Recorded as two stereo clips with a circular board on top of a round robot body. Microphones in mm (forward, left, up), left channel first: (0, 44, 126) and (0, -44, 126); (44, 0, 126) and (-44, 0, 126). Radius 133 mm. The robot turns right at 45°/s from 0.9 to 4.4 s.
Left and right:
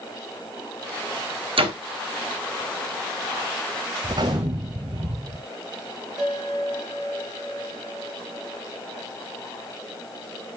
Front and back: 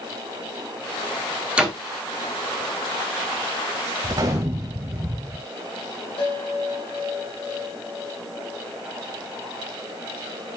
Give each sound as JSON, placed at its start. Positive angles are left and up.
{"t": 1.6, "sound": "a door slam", "azimuth_deg": -100, "distance_m": 2.5}
{"t": 4.0, "sound": "a gunshot", "azimuth_deg": -135, "distance_m": 0.6}
{"t": 6.2, "sound": "a bell", "azimuth_deg": -10, "distance_m": 6.5}